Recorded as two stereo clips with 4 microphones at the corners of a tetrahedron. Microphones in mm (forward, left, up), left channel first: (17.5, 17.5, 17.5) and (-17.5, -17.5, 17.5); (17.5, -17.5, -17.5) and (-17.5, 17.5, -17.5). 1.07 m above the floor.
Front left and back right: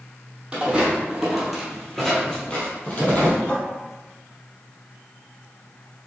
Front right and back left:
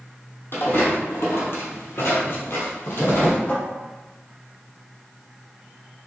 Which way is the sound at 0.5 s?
70° right.